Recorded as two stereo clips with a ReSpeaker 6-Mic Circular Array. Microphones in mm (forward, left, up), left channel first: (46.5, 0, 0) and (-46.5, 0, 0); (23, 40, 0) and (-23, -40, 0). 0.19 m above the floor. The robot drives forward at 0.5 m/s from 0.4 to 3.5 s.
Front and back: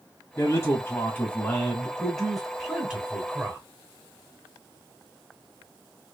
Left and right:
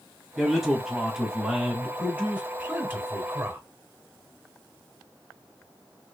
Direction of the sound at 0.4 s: 30° right.